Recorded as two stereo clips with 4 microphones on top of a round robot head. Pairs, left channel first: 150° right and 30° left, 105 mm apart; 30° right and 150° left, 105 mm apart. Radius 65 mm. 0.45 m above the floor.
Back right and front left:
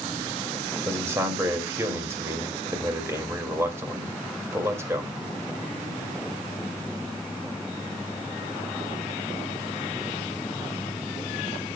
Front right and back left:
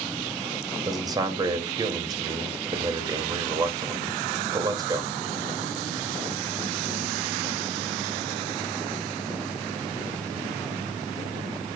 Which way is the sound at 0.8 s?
95° left.